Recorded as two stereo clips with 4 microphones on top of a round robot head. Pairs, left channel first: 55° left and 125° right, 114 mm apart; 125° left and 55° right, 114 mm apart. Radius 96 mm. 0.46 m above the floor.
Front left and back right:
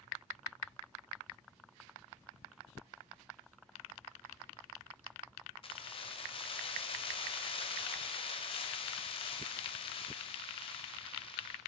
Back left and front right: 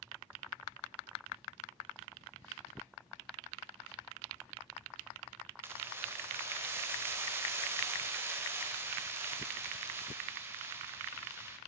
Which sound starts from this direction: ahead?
Keys jangling, at 5.6 s.